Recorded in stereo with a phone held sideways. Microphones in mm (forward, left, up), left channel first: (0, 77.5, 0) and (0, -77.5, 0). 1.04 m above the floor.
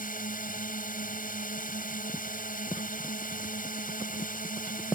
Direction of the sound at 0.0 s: 65° left (ahead or behind).